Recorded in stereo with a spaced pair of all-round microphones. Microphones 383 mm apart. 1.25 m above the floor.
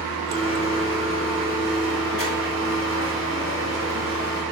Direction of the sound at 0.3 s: 30° right (ahead or behind).